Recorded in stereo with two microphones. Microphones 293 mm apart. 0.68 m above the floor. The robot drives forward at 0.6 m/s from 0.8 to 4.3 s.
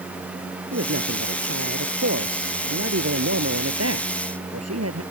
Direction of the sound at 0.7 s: 50° right (ahead or behind).